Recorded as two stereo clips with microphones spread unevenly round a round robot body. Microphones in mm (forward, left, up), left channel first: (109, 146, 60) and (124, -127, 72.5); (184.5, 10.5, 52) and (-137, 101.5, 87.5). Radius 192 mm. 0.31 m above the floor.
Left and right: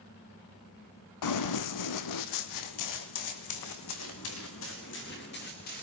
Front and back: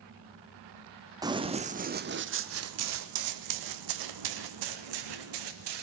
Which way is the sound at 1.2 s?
85° left.